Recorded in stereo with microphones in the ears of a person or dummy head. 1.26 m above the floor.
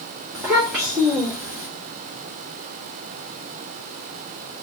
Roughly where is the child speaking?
Centre.